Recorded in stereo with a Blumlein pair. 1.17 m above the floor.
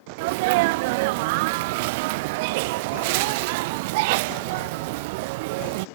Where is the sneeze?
50° right.